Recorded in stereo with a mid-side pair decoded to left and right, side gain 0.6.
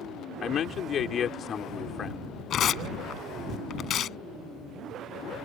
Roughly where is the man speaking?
Ahead left.